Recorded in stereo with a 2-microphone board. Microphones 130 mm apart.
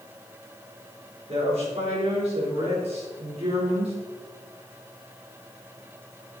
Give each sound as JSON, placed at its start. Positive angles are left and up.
{"t": 1.3, "sound": "a woman speaking", "side_deg": -60, "distance_m": 4.5}